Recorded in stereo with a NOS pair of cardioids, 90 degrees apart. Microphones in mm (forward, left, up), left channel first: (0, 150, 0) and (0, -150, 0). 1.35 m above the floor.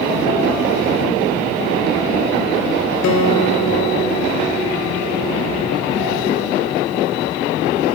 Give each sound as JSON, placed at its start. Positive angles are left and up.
{"t": 3.0, "sound": "a guitar", "azimuth_deg": 65, "distance_m": 3.0}